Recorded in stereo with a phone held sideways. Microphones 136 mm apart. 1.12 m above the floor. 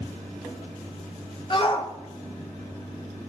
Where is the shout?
40° left (ahead or behind), 0.9 m.